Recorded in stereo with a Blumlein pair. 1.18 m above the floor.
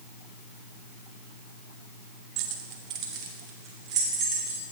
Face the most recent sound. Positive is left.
turn(degrees=-30)